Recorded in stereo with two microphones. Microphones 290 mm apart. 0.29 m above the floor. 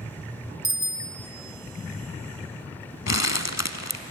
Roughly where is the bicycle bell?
Left.